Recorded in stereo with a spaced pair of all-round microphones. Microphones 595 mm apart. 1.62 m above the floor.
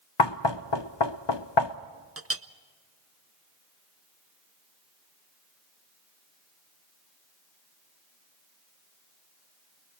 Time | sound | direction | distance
0.2 | knocking | 45° left (ahead or behind) | 0.6 m
2.2 | a clink | 25° right (ahead or behind) | 0.6 m